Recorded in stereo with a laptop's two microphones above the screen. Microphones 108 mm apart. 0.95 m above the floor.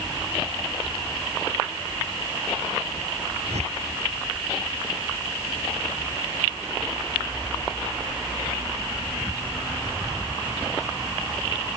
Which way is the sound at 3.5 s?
85° right.